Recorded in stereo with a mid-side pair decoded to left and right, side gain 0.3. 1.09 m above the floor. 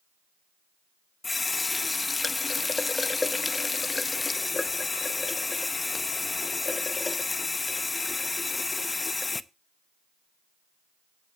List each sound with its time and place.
1.2 s a running tap: 40° left, 0.7 m